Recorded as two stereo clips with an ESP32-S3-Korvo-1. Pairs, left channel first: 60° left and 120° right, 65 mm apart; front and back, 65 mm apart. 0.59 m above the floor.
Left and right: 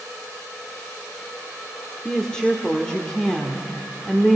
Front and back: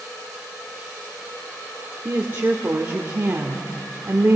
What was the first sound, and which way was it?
A woman speaking, 135° left.